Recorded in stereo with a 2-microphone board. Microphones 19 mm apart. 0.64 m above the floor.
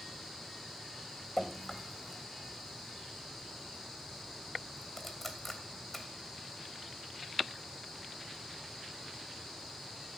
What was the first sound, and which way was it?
Dripping, 10° left (ahead or behind).